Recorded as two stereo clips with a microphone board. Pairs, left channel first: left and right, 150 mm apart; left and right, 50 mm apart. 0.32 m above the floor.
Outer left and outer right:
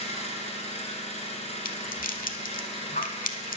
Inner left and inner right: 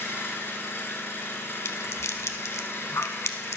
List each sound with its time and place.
0.0 s an engine running: 45° left (ahead or behind), 1.3 m
1.6 s a rattle: 65° left (ahead or behind), 0.6 m